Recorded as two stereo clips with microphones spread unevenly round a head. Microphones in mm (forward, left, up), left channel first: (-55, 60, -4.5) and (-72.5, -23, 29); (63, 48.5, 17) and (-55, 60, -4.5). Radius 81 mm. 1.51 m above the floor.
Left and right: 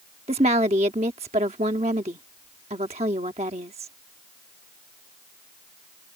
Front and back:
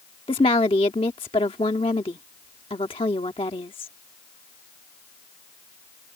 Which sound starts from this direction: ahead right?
A woman speaking, at 0.3 s.